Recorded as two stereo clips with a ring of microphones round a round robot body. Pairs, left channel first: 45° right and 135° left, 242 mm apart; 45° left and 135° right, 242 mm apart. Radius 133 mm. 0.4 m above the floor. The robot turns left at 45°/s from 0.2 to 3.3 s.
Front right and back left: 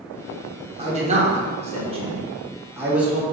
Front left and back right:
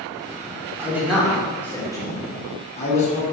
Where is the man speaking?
155° left, 1.2 m; by 3.2 s 45° left, 1.2 m.